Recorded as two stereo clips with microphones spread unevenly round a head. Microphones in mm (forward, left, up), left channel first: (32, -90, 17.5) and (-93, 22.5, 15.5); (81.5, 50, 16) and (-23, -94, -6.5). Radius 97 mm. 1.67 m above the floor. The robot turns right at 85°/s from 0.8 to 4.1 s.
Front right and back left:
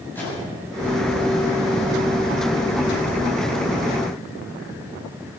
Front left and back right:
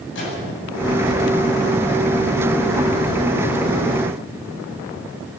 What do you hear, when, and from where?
0.1 s a microwave: 40° left, 8 m